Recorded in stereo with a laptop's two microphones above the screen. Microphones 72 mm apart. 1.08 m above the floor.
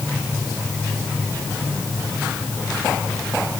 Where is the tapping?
No tapping in this recording.